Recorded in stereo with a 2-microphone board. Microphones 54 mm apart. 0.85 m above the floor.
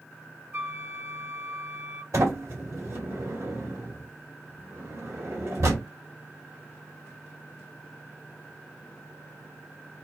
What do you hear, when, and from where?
0.5 s a flute: 40° right (ahead or behind), 1.2 m
2.1 s a sliding door: 75° right (ahead or behind), 2 m